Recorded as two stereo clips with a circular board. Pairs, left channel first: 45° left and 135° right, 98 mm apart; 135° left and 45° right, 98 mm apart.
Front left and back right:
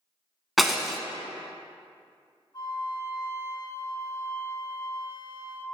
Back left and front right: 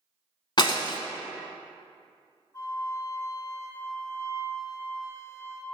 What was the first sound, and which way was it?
Breaking glass, 135° left.